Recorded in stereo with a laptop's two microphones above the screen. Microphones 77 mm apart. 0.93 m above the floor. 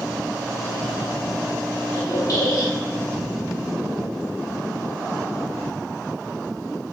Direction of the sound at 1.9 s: 45° left (ahead or behind).